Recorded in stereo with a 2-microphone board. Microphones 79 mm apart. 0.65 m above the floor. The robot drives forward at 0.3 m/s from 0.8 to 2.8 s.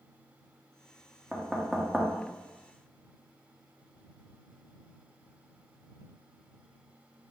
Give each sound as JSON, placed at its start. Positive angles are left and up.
{"t": 1.3, "sound": "knocking", "side_deg": 0, "distance_m": 0.8}